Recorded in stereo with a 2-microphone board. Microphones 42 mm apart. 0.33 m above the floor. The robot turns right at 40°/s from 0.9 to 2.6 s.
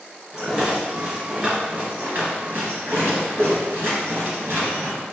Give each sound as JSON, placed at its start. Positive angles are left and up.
{"t": 0.3, "sound": "a rattle", "side_deg": -5, "distance_m": 1.7}